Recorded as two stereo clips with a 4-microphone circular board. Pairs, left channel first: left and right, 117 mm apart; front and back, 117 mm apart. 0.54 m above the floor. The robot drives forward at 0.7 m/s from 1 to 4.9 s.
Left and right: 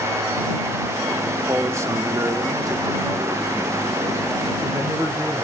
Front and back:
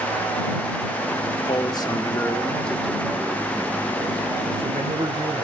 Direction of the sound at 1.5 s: 30° right.